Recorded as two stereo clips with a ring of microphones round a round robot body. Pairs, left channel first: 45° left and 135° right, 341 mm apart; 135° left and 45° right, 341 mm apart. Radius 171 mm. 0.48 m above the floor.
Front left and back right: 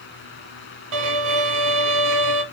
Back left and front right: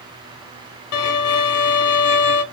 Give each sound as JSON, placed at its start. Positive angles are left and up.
{"t": 0.9, "sound": "a violin", "azimuth_deg": -175, "distance_m": 0.9}